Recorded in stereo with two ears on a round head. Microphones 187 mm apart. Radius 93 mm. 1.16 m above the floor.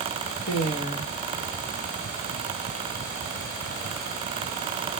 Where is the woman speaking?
35° left (ahead or behind), 1.8 m.